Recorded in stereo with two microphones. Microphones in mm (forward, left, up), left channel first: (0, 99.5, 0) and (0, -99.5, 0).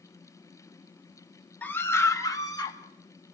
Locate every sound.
1.6 s a scream: 10° left (ahead or behind), 1.9 m; by 2.8 s 20° left (ahead or behind), 3 m